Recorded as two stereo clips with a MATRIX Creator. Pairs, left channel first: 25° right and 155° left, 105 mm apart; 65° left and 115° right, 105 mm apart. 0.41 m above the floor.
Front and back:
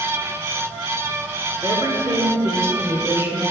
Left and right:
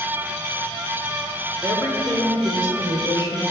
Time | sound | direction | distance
1.6 | a woman speaking | 175° left | 0.9 m